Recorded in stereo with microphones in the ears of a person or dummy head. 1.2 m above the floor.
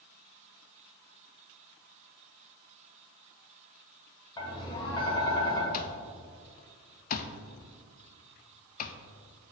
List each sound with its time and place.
4.4 s tapping: 25° left (ahead or behind), 1.8 m
5.7 s an alarm clock: 45° left (ahead or behind), 0.5 m